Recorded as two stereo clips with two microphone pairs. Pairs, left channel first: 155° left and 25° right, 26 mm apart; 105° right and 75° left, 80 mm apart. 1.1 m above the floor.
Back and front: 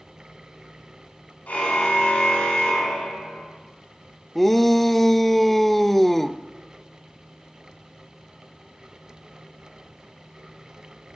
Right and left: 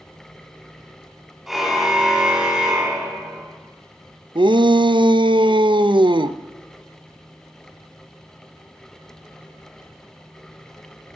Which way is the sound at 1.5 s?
160° left.